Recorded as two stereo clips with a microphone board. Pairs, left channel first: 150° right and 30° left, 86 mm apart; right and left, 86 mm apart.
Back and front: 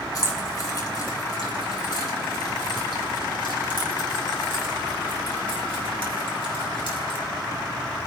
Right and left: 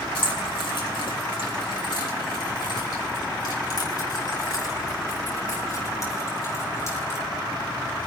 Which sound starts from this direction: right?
Keys jangling, at 0.1 s.